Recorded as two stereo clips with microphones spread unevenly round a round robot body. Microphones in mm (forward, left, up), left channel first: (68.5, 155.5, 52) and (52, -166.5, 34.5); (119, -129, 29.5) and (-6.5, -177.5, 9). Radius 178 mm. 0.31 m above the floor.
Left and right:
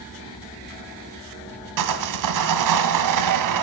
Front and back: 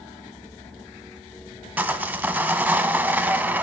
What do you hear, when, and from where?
1.8 s sawing: 85° right, 1.7 m